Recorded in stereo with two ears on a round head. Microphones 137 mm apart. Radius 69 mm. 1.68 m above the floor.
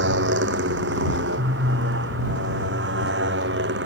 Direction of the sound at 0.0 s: 90° right.